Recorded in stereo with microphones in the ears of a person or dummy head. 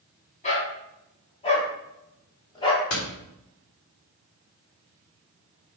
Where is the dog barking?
30° left (ahead or behind), 3 m; by 2.8 s 20° left (ahead or behind), 1.9 m.